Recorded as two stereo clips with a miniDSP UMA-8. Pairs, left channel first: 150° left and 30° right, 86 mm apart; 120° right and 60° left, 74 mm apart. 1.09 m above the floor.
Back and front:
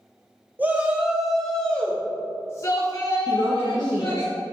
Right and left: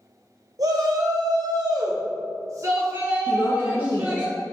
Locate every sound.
0.6 s a shout: 35° left, 1.4 m; by 4.3 s 125° left, 2 m
3.3 s a woman speaking: 75° right, 1.1 m